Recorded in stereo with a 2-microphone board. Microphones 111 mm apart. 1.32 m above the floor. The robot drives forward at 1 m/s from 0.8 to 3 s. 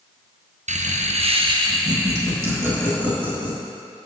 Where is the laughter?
80° right, 0.7 m; by 3.6 s 20° right (ahead or behind), 2.5 m.